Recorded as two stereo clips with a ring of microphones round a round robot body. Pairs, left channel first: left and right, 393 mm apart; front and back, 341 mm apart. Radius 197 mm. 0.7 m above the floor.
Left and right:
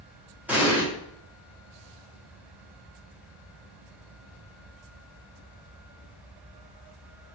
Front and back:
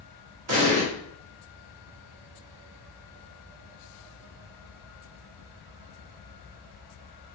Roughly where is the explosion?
Behind.